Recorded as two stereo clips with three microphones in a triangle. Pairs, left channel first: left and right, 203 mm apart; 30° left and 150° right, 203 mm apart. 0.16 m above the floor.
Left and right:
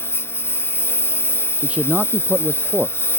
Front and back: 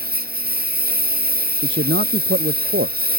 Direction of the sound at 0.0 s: 170° left.